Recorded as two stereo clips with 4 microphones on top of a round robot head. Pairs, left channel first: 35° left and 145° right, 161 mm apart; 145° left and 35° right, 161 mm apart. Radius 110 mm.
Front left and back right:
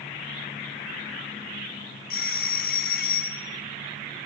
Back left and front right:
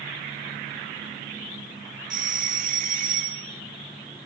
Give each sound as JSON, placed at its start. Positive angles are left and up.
{"t": 2.1, "sound": "a doorbell", "azimuth_deg": 5, "distance_m": 3.0}